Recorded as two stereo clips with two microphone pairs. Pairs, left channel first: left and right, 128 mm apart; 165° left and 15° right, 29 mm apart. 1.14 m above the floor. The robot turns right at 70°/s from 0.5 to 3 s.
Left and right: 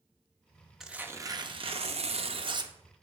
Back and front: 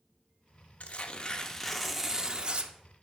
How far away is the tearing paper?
About 0.6 m.